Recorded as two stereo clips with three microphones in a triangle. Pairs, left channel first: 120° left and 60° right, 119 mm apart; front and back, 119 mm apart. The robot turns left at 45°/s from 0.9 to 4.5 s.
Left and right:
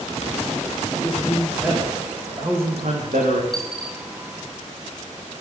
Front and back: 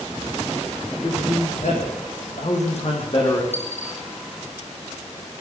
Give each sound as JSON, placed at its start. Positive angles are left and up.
{"t": 1.0, "sound": "a man speaking", "azimuth_deg": 50, "distance_m": 8.5}
{"t": 3.5, "sound": "a dropped coin", "azimuth_deg": 30, "distance_m": 4.0}